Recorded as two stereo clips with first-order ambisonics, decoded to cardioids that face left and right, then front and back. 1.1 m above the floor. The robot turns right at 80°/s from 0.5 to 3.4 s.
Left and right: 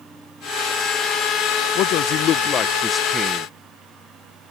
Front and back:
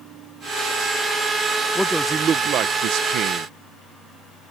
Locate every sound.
1.8 s a man speaking: 80° left; by 3.5 s 150° right